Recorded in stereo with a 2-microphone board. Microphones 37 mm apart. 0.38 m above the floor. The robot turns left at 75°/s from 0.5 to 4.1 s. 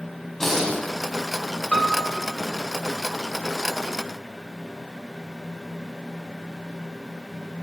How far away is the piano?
About 0.7 m.